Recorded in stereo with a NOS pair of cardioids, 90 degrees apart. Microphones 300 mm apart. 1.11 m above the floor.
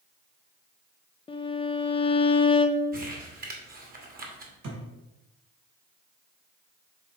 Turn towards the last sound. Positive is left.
turn(degrees=-70)